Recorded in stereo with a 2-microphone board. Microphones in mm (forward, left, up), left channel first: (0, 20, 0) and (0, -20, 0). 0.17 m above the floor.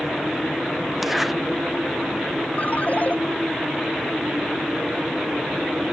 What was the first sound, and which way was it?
A zipper, 5° right (ahead or behind).